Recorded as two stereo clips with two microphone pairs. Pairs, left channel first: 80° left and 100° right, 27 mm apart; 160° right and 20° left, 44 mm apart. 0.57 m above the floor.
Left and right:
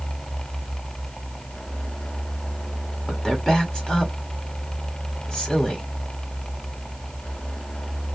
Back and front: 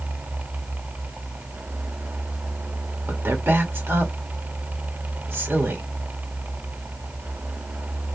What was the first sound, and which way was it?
A woman speaking, 15° left.